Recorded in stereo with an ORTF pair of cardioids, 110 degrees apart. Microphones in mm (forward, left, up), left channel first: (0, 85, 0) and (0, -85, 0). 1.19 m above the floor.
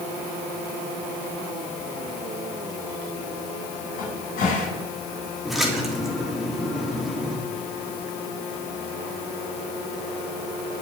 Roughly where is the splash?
Ahead.